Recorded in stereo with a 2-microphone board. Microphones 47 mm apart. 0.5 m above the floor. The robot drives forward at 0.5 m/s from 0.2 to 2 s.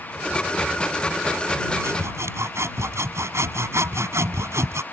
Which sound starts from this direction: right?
Sawing, at 1.8 s.